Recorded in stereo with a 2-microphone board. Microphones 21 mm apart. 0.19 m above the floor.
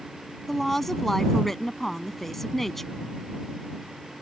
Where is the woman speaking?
15° left (ahead or behind).